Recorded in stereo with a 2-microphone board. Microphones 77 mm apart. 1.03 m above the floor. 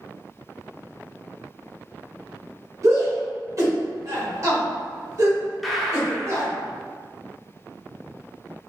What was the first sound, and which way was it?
A shout, 40° right (ahead or behind).